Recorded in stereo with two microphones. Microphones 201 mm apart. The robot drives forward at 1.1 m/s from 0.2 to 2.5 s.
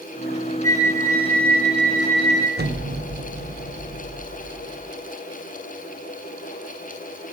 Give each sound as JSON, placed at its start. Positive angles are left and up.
{"t": 0.6, "sound": "a flute", "side_deg": 15, "distance_m": 0.8}
{"t": 2.6, "sound": "an explosion", "side_deg": -55, "distance_m": 0.8}